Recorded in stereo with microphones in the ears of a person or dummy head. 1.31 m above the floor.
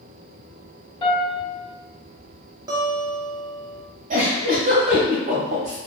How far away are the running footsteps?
No running footsteps in this recording.